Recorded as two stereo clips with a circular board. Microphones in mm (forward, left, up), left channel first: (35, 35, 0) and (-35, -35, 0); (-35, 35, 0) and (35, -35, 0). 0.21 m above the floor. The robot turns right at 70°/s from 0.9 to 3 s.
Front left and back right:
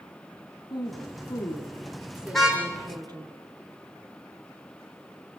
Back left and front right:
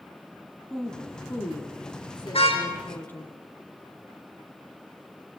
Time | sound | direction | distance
0.7 | a woman speaking | 50° left | 2.5 m
2.3 | a car horn | 130° left | 5 m